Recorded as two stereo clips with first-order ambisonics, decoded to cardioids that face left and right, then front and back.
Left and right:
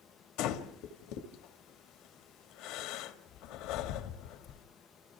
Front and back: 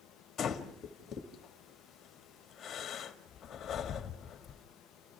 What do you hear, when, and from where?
0.4 s breathing: 65° left, 2 m